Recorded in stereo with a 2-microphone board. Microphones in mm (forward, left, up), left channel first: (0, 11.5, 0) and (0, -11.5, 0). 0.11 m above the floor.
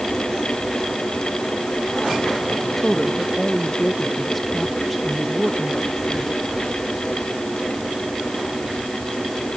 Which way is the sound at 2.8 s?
10° left (ahead or behind).